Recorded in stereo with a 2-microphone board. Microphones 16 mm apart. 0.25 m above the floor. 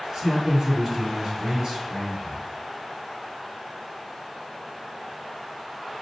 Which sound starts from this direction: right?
A man speaking, at 0.1 s.